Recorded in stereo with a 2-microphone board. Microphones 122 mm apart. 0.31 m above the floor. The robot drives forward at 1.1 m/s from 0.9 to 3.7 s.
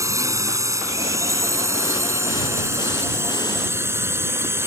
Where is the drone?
25° right (ahead or behind); by 4.7 s 20° right (ahead or behind).